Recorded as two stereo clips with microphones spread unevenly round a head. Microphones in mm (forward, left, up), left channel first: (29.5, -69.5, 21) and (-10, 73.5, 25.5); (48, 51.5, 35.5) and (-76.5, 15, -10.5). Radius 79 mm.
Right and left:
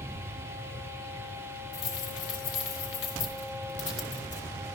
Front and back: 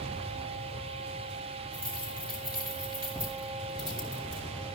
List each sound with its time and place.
1.7 s keys jangling: 95° right, 4 m